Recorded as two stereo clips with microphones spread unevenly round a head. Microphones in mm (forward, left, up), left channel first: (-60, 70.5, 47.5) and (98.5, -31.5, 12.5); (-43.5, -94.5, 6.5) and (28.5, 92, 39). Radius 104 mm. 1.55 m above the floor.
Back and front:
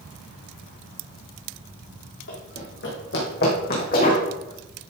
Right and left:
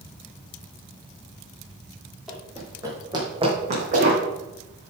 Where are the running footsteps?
155° left, 3.5 m; by 4.2 s 110° left, 4 m.